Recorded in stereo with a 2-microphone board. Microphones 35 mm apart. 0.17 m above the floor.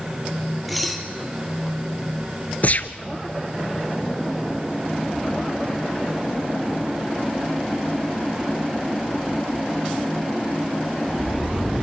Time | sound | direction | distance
0.7 | dishes clattering | centre (ahead or behind) | 2.5 m
2.6 | a gunshot | 50° left (ahead or behind) | 0.8 m